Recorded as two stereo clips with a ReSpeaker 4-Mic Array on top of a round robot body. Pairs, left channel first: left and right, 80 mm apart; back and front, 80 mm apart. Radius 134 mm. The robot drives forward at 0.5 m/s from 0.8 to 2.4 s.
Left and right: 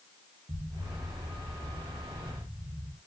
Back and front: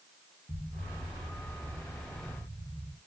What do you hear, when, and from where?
0.5 s an explosion: 70° right, 2 m; by 3.0 s 90° right, 2.0 m